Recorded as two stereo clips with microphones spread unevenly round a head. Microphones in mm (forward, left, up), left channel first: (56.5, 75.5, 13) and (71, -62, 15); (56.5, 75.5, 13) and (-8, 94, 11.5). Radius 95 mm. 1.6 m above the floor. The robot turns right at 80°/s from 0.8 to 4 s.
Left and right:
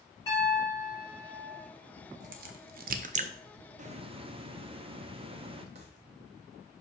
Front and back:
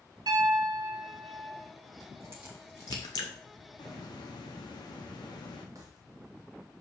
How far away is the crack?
About 0.6 m.